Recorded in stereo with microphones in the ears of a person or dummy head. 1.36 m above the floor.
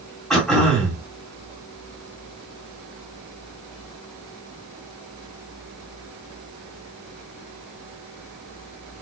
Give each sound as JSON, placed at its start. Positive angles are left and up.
{"t": 0.3, "sound": "throat clearing", "side_deg": 0, "distance_m": 2.5}